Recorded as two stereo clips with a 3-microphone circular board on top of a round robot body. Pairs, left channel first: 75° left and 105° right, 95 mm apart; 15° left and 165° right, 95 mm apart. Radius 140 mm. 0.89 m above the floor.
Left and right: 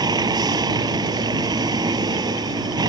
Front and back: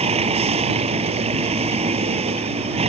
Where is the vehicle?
155° right.